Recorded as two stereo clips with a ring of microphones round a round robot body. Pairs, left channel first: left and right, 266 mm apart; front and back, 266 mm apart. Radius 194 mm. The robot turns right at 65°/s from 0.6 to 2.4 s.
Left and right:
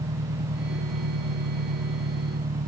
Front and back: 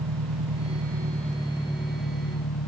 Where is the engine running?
150° right; by 2.7 s 30° right.